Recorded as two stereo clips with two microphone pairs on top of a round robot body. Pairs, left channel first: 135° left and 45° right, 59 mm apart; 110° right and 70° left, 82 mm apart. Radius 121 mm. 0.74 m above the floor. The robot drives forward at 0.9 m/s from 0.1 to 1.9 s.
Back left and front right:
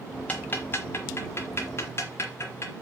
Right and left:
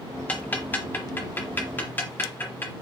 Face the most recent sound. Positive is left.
turn(degrees=180)